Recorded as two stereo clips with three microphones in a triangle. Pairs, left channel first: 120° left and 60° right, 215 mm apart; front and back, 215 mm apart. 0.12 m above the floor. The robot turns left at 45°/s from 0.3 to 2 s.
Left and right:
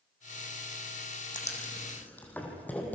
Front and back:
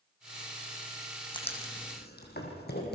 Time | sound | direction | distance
1.3 | writing | 65° left | 4 m